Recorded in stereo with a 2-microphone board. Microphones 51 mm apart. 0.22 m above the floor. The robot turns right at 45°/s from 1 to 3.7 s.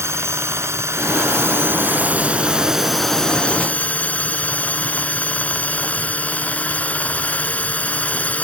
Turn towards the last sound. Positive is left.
turn(degrees=35)